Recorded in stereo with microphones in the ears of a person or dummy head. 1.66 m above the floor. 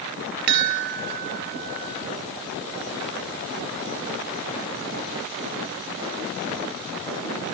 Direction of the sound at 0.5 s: 50° right (ahead or behind).